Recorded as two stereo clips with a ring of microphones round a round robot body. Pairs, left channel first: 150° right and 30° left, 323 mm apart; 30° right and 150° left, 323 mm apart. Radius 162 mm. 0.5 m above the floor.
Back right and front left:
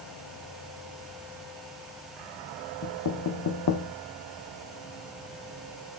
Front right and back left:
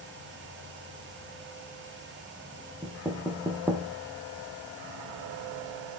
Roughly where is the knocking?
Behind right.